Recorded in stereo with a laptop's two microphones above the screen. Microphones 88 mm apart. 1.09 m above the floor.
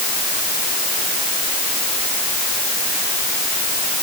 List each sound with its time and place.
Only background noise.